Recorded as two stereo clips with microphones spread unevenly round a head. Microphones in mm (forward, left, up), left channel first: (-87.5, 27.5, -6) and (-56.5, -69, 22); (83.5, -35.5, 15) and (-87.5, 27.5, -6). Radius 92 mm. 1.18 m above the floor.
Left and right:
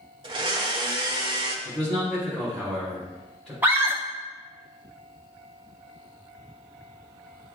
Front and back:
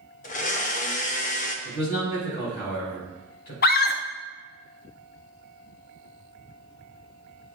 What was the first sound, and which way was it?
A blender, 60° right.